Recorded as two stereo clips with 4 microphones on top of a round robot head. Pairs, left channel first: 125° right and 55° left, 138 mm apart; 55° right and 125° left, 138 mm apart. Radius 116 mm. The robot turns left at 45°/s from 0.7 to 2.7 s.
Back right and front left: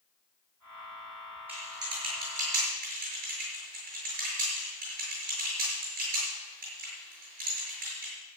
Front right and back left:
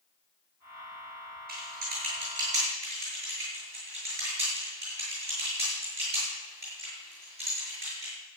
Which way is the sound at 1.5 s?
135° left.